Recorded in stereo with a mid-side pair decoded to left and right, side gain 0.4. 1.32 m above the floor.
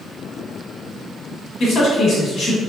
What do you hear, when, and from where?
1.6 s a man speaking: 70° left, 1.3 m